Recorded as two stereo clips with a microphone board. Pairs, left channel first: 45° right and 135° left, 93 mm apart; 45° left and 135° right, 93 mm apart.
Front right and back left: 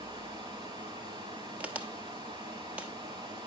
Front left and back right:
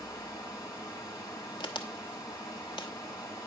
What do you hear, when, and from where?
0.0 s running water: 100° left, 3.5 m
1.6 s a crack: 65° left, 1.1 m